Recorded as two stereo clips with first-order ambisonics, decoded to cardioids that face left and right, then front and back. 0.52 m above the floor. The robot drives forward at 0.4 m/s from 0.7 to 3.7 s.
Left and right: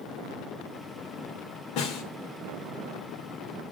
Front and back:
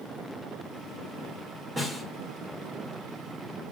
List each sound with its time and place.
1.8 s a snare drum: 100° left, 2 m; by 2.0 s 105° left, 2 m